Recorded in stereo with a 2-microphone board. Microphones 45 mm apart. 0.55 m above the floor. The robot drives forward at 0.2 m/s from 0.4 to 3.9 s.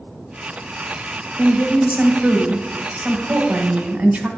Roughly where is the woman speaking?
Right.